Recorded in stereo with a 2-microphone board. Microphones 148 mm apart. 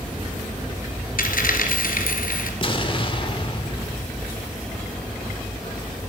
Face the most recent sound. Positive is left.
turn(degrees=35)  # may be behind; listen again after turning